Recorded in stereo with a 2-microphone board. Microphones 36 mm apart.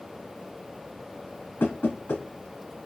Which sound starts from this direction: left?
Knocking, at 1.6 s.